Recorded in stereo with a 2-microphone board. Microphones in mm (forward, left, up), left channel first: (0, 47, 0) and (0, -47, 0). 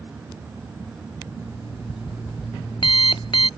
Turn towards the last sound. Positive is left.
turn(degrees=60)  # may be behind; listen again after turning